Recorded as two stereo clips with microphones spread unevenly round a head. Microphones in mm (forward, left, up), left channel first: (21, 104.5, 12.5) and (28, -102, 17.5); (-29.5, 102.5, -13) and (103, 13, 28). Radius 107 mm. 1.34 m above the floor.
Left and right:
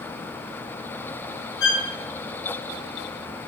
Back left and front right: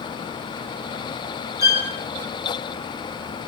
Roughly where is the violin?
Left.